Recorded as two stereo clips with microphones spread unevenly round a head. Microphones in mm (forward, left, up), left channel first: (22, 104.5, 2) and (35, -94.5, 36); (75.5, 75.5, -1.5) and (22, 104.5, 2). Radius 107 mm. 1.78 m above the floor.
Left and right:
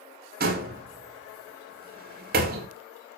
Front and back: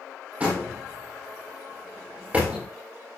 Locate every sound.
0.4 s a door slam: 130° right, 2.5 m